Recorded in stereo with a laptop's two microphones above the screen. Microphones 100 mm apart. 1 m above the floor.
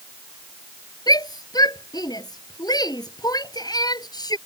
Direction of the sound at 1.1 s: 40° left (ahead or behind).